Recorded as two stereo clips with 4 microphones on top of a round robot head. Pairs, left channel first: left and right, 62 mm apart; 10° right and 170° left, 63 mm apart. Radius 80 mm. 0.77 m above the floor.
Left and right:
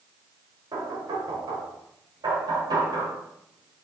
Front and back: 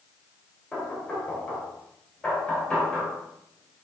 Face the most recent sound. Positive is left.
turn(degrees=-85)